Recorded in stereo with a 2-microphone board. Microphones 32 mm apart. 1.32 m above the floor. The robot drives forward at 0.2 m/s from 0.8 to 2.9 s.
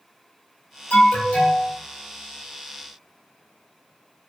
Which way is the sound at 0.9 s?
60° left (ahead or behind).